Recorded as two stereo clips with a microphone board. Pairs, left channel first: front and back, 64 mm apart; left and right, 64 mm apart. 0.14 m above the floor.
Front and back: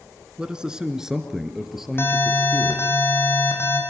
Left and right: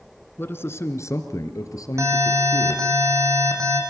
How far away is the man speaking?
About 1.6 m.